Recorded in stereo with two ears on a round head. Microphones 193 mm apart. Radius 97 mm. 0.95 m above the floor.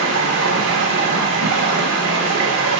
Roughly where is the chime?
No chime in this recording.